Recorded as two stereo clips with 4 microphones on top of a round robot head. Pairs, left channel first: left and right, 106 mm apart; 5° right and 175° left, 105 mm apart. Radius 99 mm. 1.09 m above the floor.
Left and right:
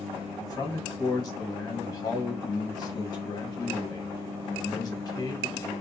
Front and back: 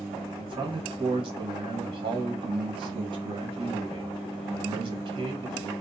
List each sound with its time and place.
0.3 s a man speaking: 140° left, 1.6 m